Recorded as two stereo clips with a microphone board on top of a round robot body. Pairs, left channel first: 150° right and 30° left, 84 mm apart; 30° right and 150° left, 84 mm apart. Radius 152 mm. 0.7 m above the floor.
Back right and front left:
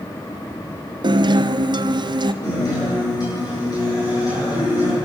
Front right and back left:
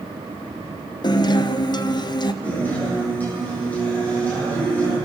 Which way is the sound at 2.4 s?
105° right.